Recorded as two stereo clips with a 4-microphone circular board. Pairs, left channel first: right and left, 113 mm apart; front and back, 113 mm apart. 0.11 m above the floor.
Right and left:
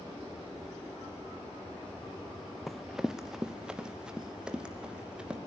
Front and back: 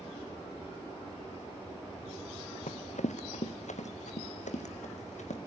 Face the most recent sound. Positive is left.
turn(degrees=10)